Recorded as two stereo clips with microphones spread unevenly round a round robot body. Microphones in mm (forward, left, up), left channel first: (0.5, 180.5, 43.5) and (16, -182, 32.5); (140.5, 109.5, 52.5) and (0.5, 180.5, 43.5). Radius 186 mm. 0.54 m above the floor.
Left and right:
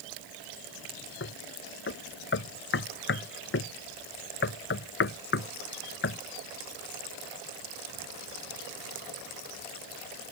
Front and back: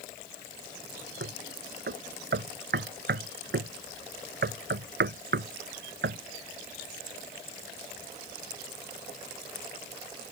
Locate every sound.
1.2 s knocking: 155° left